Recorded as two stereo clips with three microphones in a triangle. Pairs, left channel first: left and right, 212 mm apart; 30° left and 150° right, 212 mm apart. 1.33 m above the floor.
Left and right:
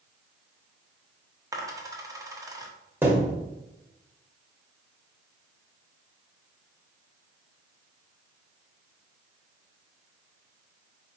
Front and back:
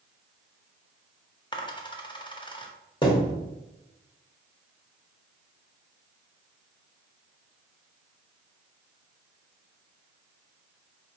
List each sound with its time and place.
1.5 s a dropped coin: 25° right, 0.7 m
3.0 s a thud: 15° right, 1.2 m